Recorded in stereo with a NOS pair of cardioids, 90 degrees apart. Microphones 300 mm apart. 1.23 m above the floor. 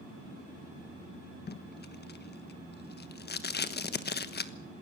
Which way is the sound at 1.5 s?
35° left.